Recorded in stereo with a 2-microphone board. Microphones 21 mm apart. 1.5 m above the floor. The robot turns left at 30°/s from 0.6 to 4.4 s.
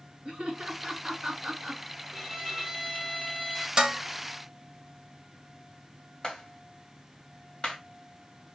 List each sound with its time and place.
0.2 s laughter: 50° right (ahead or behind), 2.0 m; by 1.8 s 15° right (ahead or behind), 2.0 m
2.1 s a violin: 20° right (ahead or behind), 1.4 m; by 3.7 s centre (ahead or behind), 1.4 m
3.8 s dishes clattering: 35° right (ahead or behind), 1.1 m; by 4.0 s 30° right (ahead or behind), 1.1 m
6.2 s a clap: 50° left (ahead or behind), 2.5 m